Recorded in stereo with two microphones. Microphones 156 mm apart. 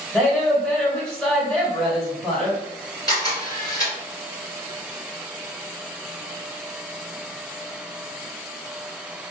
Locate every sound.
0.1 s a woman speaking: 5° left (ahead or behind), 1.7 m
3.1 s a camera shutter: 25° left (ahead or behind), 2.0 m